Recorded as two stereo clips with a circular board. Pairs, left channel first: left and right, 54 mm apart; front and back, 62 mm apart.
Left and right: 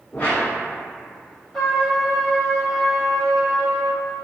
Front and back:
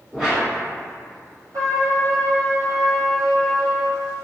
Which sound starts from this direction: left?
A whoosh, at 0.1 s.